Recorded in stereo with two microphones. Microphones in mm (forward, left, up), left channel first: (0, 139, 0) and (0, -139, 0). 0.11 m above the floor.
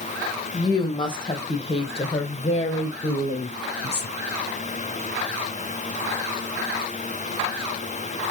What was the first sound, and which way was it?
A woman speaking, 15° left (ahead or behind).